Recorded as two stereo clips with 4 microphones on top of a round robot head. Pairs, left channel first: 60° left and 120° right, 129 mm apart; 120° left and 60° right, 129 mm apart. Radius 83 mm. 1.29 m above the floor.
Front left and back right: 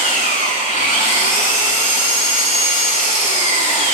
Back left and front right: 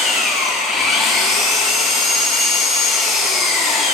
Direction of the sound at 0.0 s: 30° left.